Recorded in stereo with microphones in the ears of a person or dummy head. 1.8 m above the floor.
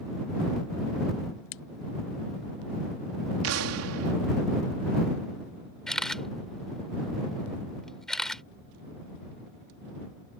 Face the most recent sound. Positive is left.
turn(degrees=5)  # may be behind; listen again after turning